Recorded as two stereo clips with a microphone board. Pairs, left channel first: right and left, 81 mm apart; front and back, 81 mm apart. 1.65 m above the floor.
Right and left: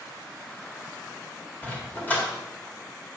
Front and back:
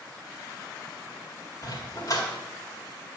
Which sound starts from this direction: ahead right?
A dog barking, at 1.6 s.